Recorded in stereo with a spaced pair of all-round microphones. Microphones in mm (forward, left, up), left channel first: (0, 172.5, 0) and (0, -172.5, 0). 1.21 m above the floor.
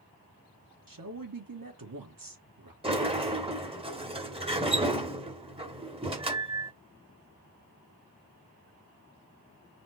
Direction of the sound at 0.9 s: 75° right (ahead or behind).